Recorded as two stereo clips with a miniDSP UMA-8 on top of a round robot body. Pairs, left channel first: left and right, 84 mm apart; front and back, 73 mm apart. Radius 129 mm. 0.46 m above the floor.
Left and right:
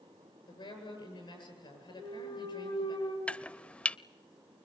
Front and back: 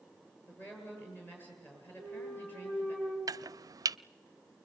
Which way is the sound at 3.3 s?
165° left.